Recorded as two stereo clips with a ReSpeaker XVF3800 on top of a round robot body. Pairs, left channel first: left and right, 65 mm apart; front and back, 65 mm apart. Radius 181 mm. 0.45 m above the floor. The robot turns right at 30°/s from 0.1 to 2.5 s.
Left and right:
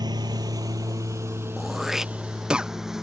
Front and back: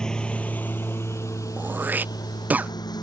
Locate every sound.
0.0 s a lawn mower: 80° right; by 3.0 s 5° right
1.6 s throat clearing: straight behind; by 2.7 s 150° right